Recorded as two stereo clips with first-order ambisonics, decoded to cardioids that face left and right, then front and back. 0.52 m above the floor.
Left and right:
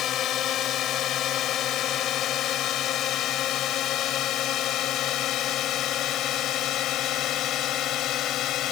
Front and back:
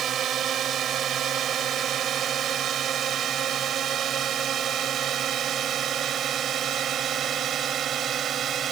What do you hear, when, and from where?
0.0 s a drone: 130° left; by 8.7 s 125° left